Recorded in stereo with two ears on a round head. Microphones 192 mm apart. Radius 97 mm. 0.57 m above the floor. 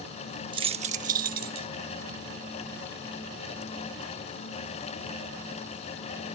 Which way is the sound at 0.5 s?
20° right (ahead or behind).